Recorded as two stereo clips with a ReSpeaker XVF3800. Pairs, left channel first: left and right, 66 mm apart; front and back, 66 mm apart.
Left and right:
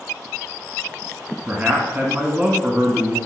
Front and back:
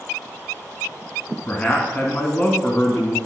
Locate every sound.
1.5 s a man speaking: 45° right, 1.4 m